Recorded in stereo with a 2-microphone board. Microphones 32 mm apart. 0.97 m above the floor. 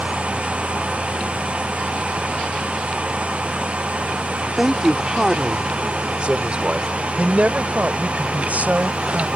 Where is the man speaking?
10° right (ahead or behind); by 9.2 s 55° right (ahead or behind).